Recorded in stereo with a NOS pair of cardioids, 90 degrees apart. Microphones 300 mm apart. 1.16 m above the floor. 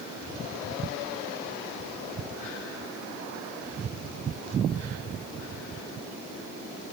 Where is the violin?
No violin in this recording.